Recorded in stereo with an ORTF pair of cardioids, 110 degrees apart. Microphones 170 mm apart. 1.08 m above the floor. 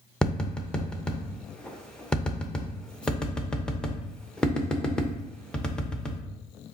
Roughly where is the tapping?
Ahead.